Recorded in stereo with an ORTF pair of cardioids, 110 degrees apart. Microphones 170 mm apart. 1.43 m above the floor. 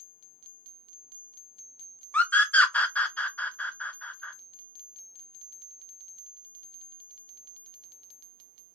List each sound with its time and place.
2.1 s a scream: 10° left, 0.6 m